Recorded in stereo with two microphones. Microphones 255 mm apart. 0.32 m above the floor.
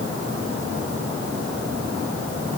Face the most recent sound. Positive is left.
No sound to turn to.